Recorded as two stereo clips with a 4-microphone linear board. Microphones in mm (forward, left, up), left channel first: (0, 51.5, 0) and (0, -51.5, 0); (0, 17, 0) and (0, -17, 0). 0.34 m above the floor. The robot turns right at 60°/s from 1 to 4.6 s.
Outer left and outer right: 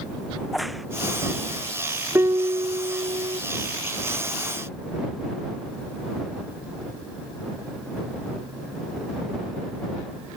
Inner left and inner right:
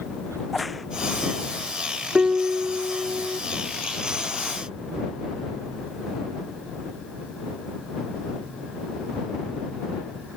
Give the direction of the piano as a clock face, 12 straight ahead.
5 o'clock.